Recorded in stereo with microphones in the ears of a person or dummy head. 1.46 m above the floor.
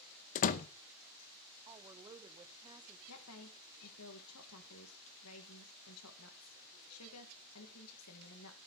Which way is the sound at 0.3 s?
40° left (ahead or behind).